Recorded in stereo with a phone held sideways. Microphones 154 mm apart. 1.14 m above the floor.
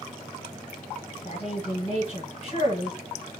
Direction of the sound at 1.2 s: 40° left (ahead or behind).